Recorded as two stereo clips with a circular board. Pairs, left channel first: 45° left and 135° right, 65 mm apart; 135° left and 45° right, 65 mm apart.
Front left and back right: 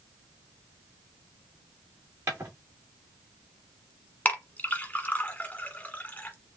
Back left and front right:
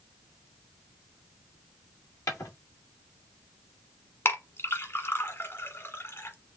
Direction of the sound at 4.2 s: 100° left.